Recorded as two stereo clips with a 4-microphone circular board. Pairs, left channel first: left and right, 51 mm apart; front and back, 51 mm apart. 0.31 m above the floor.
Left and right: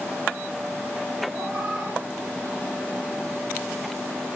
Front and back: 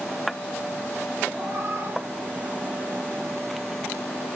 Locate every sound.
1.3 s a cat meowing: 140° right, 4 m